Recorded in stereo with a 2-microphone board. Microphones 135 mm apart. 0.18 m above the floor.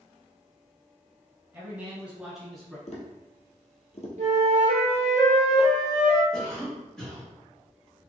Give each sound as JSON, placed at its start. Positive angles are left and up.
{"t": 1.5, "sound": "a man speaking", "side_deg": -20, "distance_m": 1.5}
{"t": 2.9, "sound": "tapping", "side_deg": 55, "distance_m": 1.2}
{"t": 4.2, "sound": "a flute", "side_deg": -60, "distance_m": 1.2}
{"t": 6.3, "sound": "a cough", "side_deg": 5, "distance_m": 1.8}